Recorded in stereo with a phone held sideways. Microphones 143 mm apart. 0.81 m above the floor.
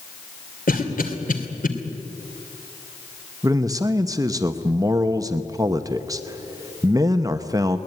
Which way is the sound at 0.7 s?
80° left.